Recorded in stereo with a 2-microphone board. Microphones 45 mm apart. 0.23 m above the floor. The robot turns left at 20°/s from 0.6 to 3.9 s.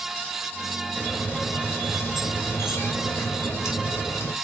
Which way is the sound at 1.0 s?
145° left.